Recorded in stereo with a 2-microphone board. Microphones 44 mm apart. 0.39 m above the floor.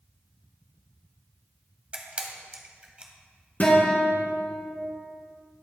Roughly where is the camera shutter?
Right.